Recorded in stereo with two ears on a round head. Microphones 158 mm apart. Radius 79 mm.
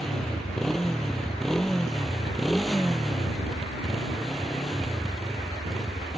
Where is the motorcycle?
Centre (ahead or behind).